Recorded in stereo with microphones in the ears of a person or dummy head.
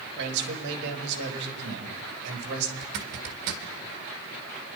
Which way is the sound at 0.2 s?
60° right (ahead or behind).